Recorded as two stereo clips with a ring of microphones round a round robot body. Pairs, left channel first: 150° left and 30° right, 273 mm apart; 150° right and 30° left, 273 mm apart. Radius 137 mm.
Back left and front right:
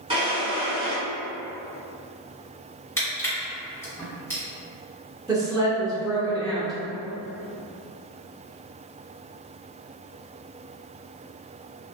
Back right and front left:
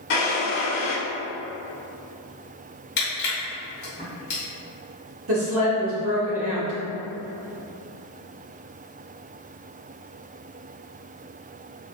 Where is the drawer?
100° right, 1.2 m.